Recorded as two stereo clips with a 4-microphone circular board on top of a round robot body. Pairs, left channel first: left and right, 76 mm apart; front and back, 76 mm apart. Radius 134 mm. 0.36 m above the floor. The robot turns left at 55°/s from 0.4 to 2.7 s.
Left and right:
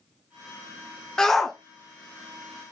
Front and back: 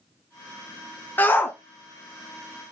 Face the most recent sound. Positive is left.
turn(degrees=-65)